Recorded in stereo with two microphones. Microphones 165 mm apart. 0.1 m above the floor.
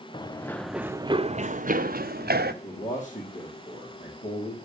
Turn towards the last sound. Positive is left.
turn(degrees=50)  # may be behind; listen again after turning